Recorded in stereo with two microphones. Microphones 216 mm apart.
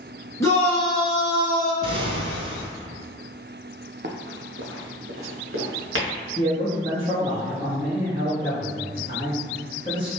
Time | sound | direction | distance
0.4 | a shout | 15° left (ahead or behind) | 1.2 m
1.8 | an explosion | 75° right (ahead or behind) | 0.5 m
4.0 | running footsteps | 50° right (ahead or behind) | 0.7 m
6.4 | a man speaking | 20° right (ahead or behind) | 1.4 m